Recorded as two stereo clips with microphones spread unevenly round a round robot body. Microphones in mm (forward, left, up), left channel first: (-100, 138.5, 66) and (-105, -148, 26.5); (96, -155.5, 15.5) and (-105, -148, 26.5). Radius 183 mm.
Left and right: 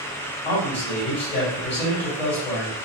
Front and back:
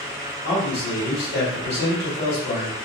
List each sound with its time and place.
0.5 s a man speaking: straight ahead, 1.8 m